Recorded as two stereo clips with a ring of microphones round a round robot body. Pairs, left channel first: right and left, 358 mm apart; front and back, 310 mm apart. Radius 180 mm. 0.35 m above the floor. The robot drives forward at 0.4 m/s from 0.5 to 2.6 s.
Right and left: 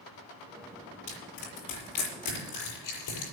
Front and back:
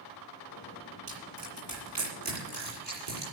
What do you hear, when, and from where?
1.1 s crushing: 130° right, 6.5 m; by 3.3 s 135° right, 7 m